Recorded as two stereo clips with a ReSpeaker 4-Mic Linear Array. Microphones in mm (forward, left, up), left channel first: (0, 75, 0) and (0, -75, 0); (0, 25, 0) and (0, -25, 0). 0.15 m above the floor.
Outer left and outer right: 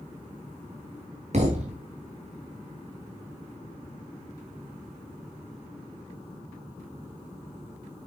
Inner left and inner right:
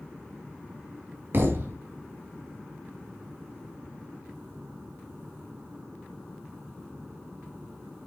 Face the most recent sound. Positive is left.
turn(degrees=-50)  # may be behind; listen again after turning